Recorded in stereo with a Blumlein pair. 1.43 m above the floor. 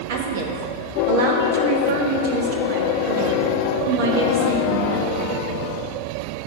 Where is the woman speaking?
50° right, 1.3 m.